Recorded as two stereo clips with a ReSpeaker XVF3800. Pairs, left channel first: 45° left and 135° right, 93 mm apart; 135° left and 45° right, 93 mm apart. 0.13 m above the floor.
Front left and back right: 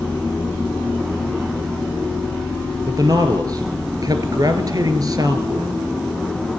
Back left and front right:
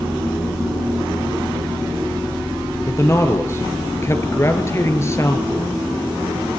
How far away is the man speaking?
About 2.5 m.